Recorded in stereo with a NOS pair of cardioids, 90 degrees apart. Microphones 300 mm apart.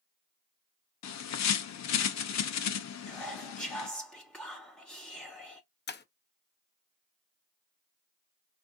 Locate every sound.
1.0 s a bird: 65° left, 0.9 m
3.1 s whispering: 5° left, 0.7 m
5.9 s breaking glass: 35° left, 0.9 m